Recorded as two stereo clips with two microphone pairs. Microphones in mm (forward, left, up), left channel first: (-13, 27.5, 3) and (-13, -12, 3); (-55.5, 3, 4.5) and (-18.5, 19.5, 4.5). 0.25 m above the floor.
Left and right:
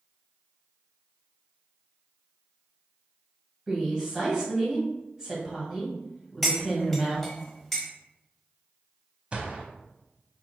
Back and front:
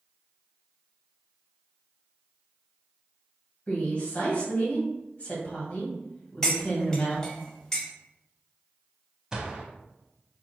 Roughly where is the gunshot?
Ahead right.